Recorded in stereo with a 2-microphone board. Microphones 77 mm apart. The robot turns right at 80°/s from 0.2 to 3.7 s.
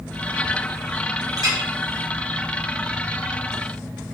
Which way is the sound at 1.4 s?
45° right (ahead or behind).